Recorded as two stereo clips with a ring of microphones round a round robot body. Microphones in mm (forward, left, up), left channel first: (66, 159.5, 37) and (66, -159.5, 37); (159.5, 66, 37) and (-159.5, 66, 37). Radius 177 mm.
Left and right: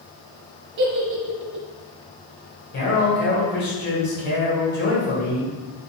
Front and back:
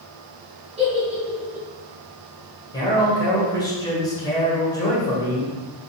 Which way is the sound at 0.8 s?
110° right.